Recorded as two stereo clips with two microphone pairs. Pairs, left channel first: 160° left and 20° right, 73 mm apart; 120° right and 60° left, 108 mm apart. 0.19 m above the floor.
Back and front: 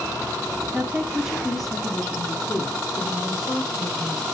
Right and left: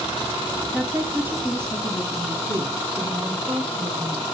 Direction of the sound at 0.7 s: 5° left.